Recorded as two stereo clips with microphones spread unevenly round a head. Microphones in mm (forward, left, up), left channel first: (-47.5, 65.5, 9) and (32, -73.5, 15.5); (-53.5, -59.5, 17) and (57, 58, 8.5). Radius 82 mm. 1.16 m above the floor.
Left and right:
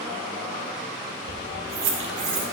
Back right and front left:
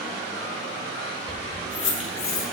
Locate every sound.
1.3 s keys jangling: 55° right, 0.9 m; by 2.5 s 85° right, 1.7 m